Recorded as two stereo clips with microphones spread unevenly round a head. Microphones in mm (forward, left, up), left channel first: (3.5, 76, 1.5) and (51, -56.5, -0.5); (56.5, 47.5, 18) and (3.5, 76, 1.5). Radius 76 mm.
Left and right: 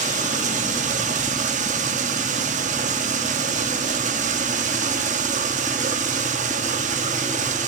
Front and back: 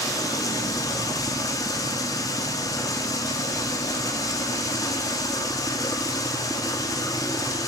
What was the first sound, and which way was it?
Running water, 40° right.